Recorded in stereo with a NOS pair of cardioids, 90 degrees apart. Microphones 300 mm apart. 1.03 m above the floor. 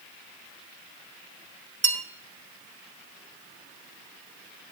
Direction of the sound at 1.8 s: 40° right.